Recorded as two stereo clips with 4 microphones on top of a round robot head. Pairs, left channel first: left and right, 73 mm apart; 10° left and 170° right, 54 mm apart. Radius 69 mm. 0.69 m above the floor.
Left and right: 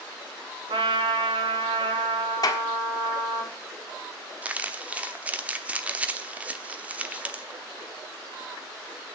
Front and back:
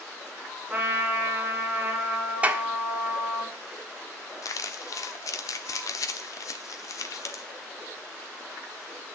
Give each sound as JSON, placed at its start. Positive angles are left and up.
{"t": 0.7, "sound": "a trumpet", "azimuth_deg": -90, "distance_m": 3.5}
{"t": 2.4, "sound": "a clap", "azimuth_deg": 125, "distance_m": 1.4}
{"t": 4.4, "sound": "crumpling", "azimuth_deg": -20, "distance_m": 1.0}